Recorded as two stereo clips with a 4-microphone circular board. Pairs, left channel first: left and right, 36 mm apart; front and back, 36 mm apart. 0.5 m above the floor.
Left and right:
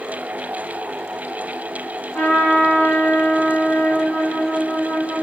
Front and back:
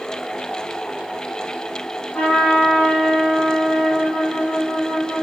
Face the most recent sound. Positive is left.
turn(degrees=55)